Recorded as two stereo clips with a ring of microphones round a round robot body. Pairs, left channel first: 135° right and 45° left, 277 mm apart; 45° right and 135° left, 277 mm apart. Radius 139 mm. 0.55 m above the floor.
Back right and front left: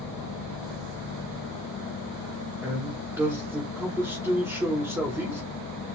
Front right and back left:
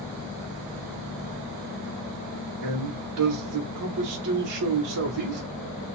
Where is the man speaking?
130° left, 1.5 m.